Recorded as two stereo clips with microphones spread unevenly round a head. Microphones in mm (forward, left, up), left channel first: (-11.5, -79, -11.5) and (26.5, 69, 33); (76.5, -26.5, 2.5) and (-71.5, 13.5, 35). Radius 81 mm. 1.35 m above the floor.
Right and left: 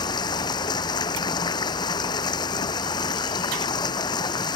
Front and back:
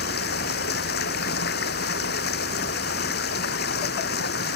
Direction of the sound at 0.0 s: 40° right.